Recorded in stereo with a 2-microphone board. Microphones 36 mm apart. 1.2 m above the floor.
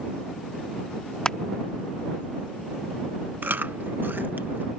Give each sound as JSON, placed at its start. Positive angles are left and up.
{"t": 1.2, "sound": "crushing", "side_deg": 20}
{"t": 3.4, "sound": "chewing", "side_deg": -65}